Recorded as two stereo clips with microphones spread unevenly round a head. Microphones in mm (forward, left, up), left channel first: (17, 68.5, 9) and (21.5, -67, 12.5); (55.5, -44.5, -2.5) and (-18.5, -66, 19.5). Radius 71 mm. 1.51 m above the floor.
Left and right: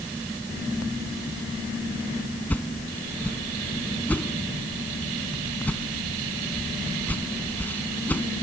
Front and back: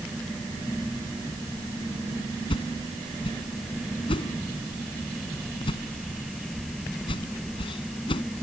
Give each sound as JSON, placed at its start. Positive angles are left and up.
{"t": 2.5, "sound": "a whoosh", "azimuth_deg": 15}